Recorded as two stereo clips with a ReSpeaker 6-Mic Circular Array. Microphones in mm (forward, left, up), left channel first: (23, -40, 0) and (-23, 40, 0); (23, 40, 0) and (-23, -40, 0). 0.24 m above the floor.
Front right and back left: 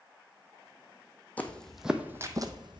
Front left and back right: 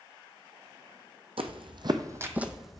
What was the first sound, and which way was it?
Footsteps, 130° right.